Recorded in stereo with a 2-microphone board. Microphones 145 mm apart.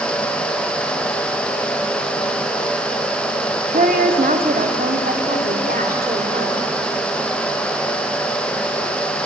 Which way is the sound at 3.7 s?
65° right (ahead or behind).